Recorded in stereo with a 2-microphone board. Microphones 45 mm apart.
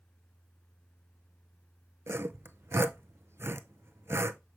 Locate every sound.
2.1 s sawing: 75° right (ahead or behind), 0.5 m